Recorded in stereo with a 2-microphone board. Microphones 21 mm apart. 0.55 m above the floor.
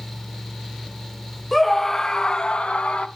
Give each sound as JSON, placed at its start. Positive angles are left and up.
{"t": 1.5, "sound": "a scream", "side_deg": 0, "distance_m": 1.1}